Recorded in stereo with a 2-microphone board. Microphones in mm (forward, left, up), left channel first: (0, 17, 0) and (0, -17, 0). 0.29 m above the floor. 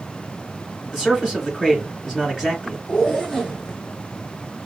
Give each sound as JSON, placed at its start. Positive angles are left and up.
{"t": 0.9, "sound": "a man speaking", "side_deg": 5, "distance_m": 2.5}
{"t": 2.9, "sound": "a zipper", "side_deg": 10, "distance_m": 2.0}